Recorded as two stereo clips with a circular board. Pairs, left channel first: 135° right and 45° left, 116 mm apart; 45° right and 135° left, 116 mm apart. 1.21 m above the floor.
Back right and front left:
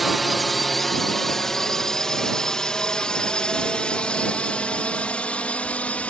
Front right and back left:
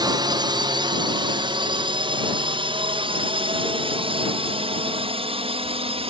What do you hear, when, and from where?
0.0 s a drone: 135° left; by 6.1 s 150° left